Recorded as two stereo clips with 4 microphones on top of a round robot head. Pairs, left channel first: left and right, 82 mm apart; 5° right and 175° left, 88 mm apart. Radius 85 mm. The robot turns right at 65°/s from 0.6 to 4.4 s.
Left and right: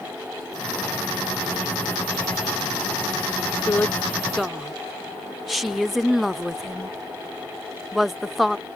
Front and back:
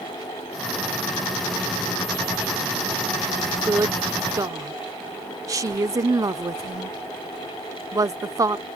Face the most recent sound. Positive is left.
turn(degrees=-175)